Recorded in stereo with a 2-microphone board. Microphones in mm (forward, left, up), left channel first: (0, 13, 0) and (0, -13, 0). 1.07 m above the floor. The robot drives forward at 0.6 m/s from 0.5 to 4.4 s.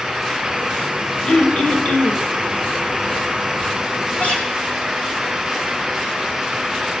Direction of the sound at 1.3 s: 50° left (ahead or behind).